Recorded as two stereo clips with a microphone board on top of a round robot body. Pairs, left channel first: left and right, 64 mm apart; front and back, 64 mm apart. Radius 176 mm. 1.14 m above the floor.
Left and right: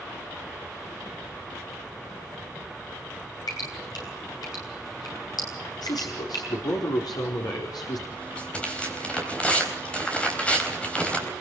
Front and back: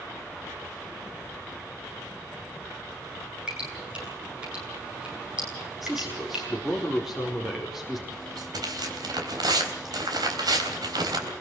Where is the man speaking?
95° left, 4.5 m.